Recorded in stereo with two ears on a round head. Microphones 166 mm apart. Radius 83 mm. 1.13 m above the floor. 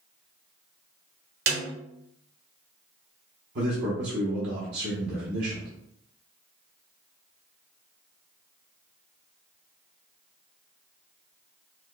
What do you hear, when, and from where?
1.5 s a snare drum: 60° right (ahead or behind), 1.6 m
3.5 s a man speaking: 60° right (ahead or behind), 0.9 m